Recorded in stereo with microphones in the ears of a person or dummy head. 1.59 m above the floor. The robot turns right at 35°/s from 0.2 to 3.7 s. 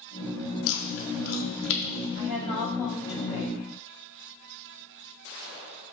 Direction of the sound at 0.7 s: 70° left (ahead or behind).